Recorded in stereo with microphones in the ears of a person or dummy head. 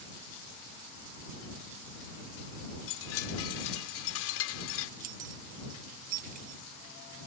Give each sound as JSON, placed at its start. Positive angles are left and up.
{"t": 2.9, "sound": "a chime", "side_deg": 80}
{"t": 5.0, "sound": "keys jangling", "side_deg": -50}